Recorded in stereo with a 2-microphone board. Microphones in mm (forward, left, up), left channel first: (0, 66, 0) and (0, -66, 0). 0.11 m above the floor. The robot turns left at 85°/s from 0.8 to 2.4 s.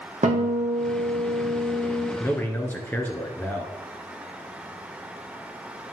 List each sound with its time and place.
0.2 s a guitar: 110° right, 2.5 m; by 2.1 s 140° left, 2.5 m
2.2 s a man speaking: 20° left (ahead or behind), 1.3 m; by 3.7 s 15° left (ahead or behind), 1.3 m